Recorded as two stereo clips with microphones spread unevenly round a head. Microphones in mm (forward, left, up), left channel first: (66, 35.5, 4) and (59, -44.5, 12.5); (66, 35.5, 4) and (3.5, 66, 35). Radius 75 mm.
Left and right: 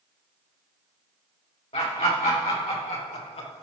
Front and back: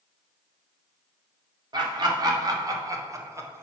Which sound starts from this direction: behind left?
Laughter, at 1.7 s.